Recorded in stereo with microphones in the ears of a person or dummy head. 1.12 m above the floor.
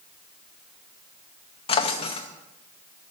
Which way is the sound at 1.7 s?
35° left (ahead or behind).